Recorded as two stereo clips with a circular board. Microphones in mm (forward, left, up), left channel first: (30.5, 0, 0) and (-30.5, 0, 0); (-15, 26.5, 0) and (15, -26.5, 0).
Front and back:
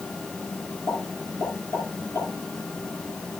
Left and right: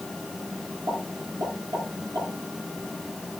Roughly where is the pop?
Ahead right.